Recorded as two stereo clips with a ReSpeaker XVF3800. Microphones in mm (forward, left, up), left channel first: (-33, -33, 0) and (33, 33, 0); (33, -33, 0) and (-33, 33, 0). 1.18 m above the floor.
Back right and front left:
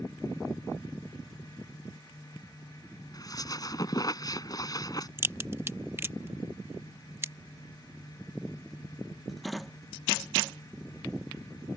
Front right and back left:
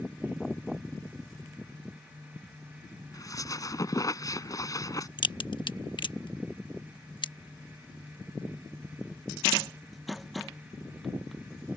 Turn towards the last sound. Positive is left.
turn(degrees=-15)